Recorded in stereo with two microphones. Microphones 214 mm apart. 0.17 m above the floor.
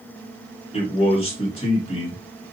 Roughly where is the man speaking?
Left.